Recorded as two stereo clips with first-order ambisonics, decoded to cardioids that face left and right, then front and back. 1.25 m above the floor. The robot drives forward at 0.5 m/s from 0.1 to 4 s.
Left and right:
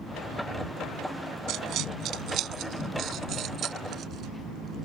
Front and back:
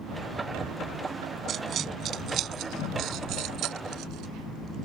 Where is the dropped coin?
125° right; by 4.9 s 145° right.